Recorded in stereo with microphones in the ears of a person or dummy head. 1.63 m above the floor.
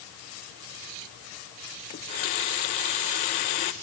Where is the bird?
No bird in this recording.